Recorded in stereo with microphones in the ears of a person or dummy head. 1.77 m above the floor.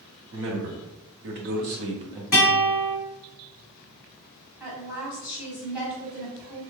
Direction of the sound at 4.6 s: 5° right (ahead or behind).